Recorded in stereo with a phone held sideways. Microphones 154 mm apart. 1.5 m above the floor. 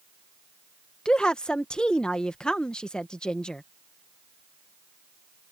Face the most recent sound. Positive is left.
turn(degrees=5)  # may be behind; listen again after turning